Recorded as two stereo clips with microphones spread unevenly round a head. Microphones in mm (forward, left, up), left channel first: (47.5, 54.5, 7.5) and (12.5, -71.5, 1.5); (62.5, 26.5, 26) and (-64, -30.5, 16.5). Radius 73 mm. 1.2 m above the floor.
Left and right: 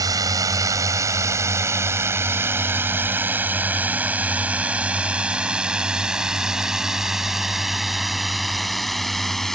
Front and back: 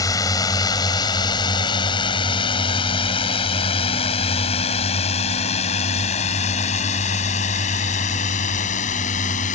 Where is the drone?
40° right; by 9.6 s 15° right.